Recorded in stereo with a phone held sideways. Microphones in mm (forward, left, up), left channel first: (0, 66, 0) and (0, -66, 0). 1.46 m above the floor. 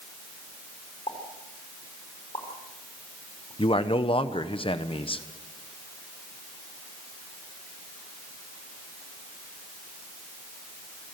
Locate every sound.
1.1 s a pop: 40° left (ahead or behind), 4.5 m
3.6 s a man speaking: 40° left (ahead or behind), 1.1 m